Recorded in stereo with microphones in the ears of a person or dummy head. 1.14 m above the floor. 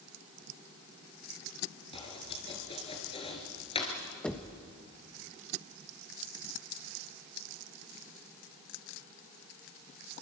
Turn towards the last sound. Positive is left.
turn(degrees=5)  # may be behind; listen again after turning